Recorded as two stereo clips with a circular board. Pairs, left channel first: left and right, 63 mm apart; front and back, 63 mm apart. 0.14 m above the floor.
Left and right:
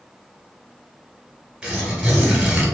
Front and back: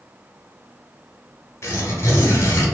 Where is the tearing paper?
20° right, 1.3 m.